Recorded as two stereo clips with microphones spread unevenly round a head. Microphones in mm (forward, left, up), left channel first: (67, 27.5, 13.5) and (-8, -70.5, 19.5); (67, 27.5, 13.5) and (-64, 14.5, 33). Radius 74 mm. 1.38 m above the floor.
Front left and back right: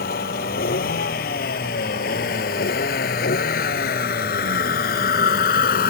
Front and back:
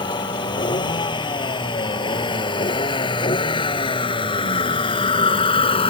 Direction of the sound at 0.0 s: 60° left.